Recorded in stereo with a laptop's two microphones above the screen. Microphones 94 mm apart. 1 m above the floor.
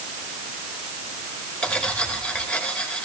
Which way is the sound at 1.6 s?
10° left (ahead or behind).